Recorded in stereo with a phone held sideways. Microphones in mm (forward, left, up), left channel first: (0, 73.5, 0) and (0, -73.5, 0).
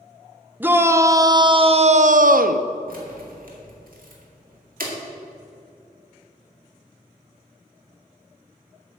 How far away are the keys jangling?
About 2 m.